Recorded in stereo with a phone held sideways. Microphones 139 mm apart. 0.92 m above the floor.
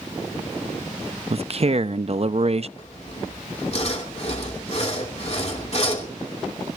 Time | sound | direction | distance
1.3 | a man speaking | 50° right (ahead or behind) | 0.6 m
2.8 | sawing | 50° left (ahead or behind) | 2.5 m